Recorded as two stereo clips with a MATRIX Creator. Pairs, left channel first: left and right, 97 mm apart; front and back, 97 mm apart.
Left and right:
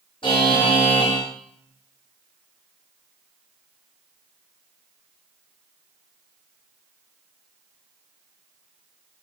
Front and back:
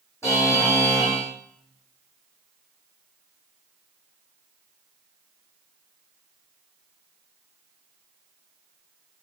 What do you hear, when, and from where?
0.2 s a buzzer: 60° left, 4 m